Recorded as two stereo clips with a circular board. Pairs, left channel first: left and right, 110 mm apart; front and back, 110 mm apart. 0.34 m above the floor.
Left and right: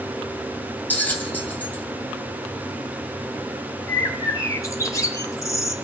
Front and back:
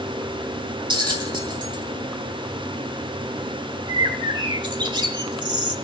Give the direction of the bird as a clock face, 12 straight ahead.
7 o'clock.